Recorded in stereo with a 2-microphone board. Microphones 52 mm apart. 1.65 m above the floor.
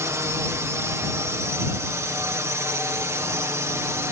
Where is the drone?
65° right (ahead or behind).